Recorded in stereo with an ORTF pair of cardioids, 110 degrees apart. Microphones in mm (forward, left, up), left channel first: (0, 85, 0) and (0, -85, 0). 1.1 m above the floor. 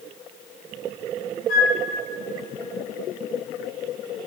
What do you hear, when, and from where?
1.5 s a flute: 55° left, 2 m